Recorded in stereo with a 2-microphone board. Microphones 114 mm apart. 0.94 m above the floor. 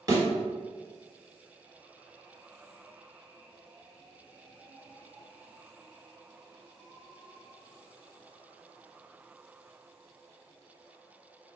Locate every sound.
0.1 s a thud: 35° right (ahead or behind), 1.7 m